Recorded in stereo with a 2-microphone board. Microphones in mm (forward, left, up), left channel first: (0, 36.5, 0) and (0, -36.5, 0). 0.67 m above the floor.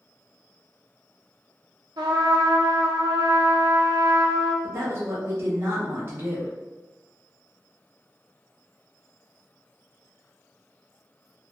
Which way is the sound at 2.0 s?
70° right (ahead or behind).